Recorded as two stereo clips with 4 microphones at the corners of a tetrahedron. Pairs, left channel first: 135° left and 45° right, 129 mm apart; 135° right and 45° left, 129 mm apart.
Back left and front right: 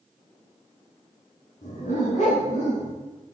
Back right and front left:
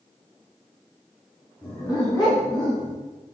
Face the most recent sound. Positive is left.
turn(degrees=175)